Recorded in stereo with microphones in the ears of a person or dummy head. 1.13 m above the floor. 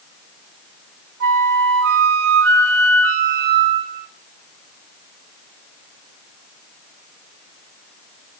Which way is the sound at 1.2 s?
55° right (ahead or behind).